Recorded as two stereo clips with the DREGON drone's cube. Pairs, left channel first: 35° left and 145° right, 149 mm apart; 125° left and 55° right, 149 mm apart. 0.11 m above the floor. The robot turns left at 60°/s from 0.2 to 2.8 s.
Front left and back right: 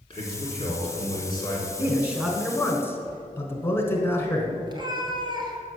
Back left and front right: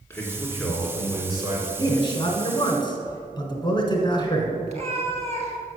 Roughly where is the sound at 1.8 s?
Behind left.